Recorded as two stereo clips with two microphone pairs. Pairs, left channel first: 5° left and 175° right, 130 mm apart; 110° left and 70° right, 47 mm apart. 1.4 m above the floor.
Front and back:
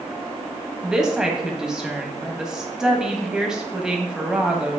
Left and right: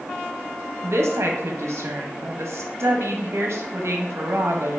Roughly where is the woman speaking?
Right.